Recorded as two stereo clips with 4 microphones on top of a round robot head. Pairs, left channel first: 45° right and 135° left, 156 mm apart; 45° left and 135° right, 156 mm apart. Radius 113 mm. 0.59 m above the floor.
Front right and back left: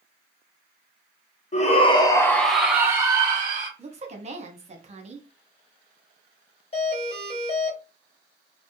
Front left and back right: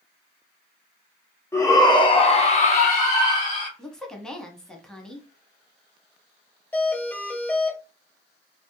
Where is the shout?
25° right, 0.8 m; by 3.7 s 85° left, 1.1 m.